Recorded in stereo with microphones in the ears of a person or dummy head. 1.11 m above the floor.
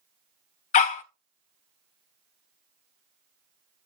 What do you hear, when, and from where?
0.7 s a dog barking: 40° left (ahead or behind), 0.6 m